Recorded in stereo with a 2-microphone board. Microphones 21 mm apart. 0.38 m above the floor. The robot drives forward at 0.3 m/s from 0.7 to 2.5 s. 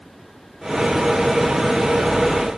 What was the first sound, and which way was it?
Only background noise.